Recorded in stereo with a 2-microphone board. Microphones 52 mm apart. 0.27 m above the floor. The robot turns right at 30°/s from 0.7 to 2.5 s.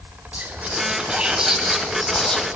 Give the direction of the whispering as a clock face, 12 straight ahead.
1 o'clock.